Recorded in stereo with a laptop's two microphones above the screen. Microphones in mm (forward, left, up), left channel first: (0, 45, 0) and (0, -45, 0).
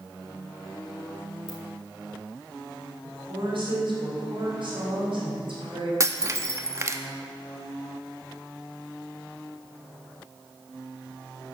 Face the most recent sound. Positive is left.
turn(degrees=-35)  # may be behind; listen again after turning